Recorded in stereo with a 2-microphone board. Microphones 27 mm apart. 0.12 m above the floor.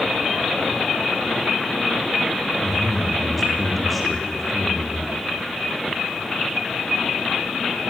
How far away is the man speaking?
About 5 m.